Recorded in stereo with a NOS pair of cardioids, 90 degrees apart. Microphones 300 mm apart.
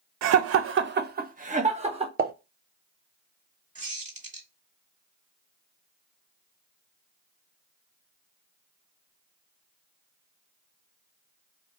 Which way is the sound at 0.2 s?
65° right.